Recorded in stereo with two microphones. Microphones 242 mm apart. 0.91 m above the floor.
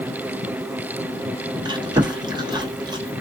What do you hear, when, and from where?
1.6 s chewing: 15° right (ahead or behind), 1.1 m